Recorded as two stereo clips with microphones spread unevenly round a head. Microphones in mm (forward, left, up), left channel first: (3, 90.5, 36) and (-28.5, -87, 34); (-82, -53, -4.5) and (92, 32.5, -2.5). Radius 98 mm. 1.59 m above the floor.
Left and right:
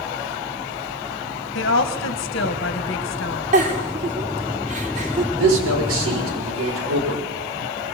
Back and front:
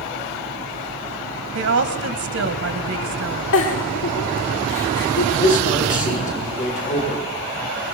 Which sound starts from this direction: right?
A man speaking, at 5.4 s.